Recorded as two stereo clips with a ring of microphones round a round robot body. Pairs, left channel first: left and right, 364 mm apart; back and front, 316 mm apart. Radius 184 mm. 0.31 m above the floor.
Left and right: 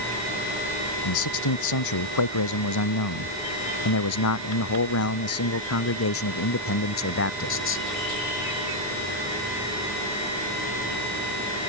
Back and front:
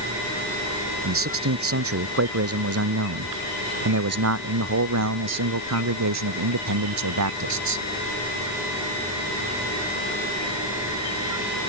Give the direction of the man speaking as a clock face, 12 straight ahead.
10 o'clock.